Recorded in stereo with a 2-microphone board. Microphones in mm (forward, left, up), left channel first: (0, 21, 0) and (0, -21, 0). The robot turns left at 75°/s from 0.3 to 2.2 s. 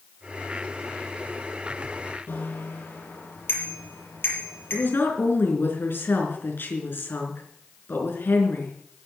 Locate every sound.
2.3 s a bicycle bell: 60° left (ahead or behind), 5.5 m
4.7 s a woman speaking: 60° left (ahead or behind), 4 m